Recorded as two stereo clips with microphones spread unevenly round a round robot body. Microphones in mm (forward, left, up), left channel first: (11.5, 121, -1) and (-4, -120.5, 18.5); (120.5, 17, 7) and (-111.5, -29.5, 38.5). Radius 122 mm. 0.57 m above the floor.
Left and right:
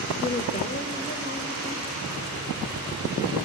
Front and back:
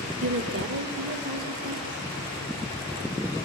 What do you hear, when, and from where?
0.2 s a woman speaking: 155° left, 1.5 m; by 2.0 s 130° left, 2.5 m